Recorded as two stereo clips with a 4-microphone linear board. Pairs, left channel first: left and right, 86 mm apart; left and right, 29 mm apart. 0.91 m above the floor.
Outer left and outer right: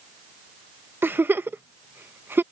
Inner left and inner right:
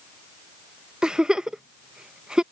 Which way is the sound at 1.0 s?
25° right (ahead or behind).